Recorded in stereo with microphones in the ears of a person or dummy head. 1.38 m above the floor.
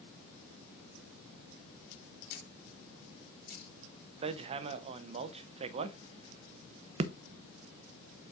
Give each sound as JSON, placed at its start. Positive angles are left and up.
{"t": 2.3, "sound": "a camera shutter", "side_deg": 55, "distance_m": 3.0}
{"t": 4.2, "sound": "hammering", "side_deg": -35, "distance_m": 0.5}